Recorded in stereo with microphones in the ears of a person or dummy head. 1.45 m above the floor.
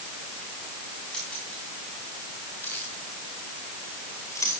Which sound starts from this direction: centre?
Keys jangling, at 1.1 s.